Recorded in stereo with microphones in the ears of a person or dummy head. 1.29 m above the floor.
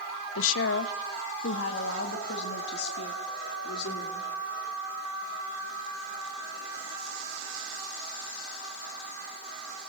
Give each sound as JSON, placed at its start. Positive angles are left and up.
{"t": 0.3, "sound": "a woman speaking", "side_deg": 75, "distance_m": 0.8}